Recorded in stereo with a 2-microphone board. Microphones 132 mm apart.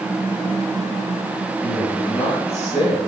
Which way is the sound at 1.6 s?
60° left (ahead or behind).